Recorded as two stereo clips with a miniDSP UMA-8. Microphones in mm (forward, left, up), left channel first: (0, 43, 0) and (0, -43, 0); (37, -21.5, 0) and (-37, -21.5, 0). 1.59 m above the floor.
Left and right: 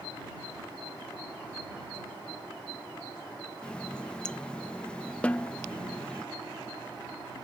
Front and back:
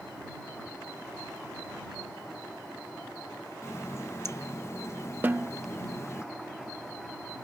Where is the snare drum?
150° left.